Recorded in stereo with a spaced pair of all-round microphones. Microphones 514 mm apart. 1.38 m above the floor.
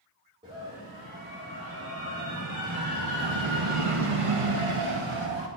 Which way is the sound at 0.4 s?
10° right (ahead or behind).